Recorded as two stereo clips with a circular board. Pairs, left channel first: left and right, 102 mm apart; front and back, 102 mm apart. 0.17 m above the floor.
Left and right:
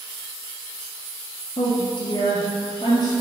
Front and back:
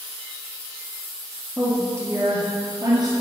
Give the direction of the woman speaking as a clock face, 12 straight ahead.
8 o'clock.